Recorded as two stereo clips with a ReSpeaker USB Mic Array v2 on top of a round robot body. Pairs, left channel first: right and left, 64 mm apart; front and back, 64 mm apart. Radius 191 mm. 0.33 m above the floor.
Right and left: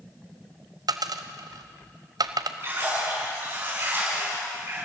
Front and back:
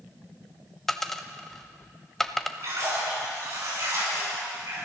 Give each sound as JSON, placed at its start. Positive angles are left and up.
{"t": 0.9, "sound": "a dropped coin", "azimuth_deg": 85, "distance_m": 0.9}
{"t": 2.6, "sound": "a splash", "azimuth_deg": 140, "distance_m": 7.0}